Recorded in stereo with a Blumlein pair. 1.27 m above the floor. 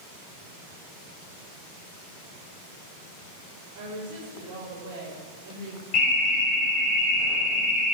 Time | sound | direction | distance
3.8 | a woman speaking | 55° right | 5 m
5.9 | an alarm | 35° left | 4.5 m